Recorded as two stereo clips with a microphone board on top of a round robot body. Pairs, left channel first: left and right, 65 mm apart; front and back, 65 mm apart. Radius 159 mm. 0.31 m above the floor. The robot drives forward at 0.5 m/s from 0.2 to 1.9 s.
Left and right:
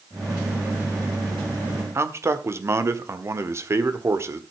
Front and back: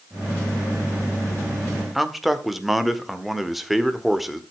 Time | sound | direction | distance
1.9 | a man speaking | 90° right | 1.8 m